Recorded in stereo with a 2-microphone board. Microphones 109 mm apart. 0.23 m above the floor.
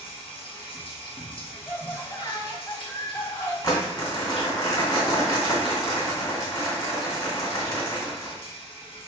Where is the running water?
50° left (ahead or behind), 1.6 m.